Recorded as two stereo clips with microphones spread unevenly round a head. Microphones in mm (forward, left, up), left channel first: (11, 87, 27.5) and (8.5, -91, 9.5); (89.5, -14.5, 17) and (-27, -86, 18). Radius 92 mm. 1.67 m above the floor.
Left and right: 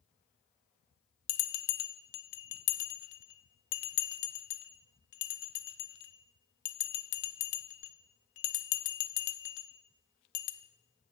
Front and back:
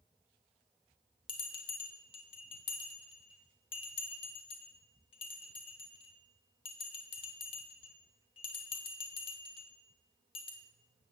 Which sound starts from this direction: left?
A bell, at 1.3 s.